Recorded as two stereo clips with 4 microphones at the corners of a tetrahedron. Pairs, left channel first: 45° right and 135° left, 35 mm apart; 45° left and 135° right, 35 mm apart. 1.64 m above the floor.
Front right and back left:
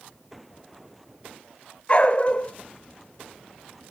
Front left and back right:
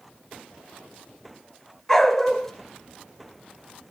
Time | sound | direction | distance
1.9 | a dog barking | 25° right | 1.5 m